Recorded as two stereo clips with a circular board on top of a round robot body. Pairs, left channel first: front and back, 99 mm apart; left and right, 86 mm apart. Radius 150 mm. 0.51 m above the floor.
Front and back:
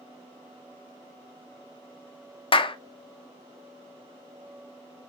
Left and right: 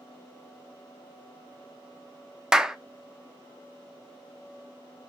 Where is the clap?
10° right, 0.7 m.